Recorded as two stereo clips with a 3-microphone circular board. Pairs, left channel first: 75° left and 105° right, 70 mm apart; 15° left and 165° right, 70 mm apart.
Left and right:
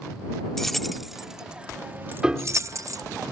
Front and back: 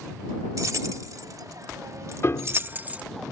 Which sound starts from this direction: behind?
Keys jangling, at 0.6 s.